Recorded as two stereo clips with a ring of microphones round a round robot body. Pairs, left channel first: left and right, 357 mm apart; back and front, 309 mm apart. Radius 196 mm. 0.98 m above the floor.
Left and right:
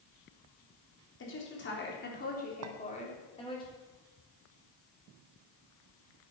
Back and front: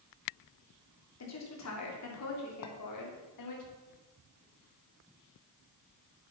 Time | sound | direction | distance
1.2 | a woman speaking | 145° left | 3.5 m
2.6 | a clink | 135° right | 1.0 m